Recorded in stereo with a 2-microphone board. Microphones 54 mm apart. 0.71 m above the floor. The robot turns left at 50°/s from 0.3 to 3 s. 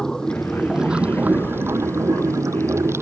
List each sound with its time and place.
0.0 s running water: 10° left; by 3.0 s 125° right